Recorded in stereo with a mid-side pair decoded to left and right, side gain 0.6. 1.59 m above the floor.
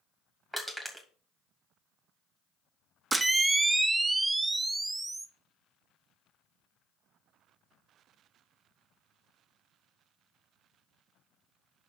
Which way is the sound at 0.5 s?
10° right.